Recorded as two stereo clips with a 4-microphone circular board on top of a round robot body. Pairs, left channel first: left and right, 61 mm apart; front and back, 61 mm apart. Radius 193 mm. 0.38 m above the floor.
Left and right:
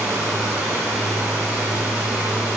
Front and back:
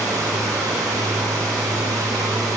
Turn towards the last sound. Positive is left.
turn(degrees=-155)